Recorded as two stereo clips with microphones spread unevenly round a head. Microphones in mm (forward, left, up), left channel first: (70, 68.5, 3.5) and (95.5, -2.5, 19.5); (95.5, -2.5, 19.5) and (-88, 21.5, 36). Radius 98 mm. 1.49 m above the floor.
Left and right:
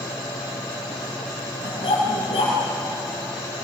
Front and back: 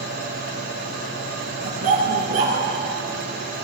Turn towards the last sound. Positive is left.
turn(degrees=125)